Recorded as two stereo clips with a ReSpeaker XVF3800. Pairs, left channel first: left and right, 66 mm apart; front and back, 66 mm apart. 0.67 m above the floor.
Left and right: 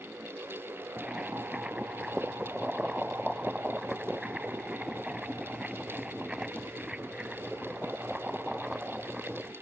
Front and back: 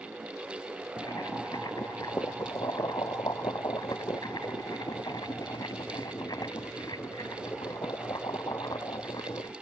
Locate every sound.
1.0 s boiling: 10° right